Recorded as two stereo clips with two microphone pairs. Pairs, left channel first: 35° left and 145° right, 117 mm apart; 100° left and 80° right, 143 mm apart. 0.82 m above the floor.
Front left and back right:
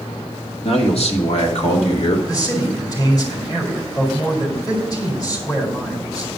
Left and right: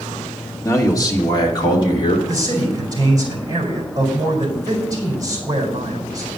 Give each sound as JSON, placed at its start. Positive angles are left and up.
{"t": 0.6, "sound": "a man speaking", "azimuth_deg": 35, "distance_m": 1.8}
{"t": 2.3, "sound": "a man speaking", "azimuth_deg": -20, "distance_m": 4.0}